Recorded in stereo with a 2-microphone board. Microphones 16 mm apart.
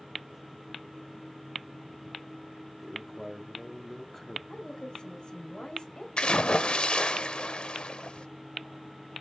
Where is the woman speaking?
65° left (ahead or behind), 3 m.